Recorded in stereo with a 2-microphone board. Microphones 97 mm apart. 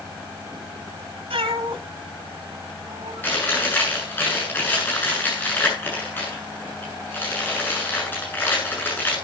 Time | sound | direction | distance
1.3 | a cat meowing | 85° right | 1.7 m
3.2 | chewing | 20° left (ahead or behind) | 8 m